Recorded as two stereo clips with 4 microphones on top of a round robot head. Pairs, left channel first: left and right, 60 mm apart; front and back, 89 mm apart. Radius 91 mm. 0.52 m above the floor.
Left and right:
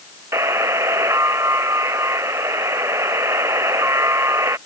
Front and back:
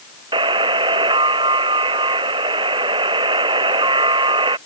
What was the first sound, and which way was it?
A buzzer, 140° right.